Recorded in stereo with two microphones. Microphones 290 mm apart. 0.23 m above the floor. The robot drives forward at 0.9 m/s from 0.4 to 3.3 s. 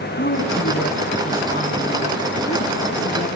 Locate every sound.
0.2 s a woman speaking: 40° left (ahead or behind), 2.5 m; by 3.3 s 20° left (ahead or behind), 5 m